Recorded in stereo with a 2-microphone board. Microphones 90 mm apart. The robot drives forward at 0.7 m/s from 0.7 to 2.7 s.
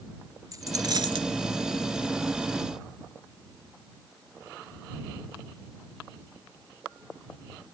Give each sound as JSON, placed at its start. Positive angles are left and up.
{"t": 0.5, "sound": "a dropped coin", "side_deg": -45}